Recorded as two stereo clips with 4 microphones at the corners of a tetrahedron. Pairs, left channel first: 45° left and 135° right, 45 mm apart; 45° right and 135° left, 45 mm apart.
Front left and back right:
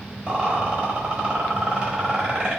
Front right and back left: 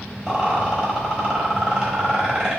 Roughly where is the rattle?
Behind.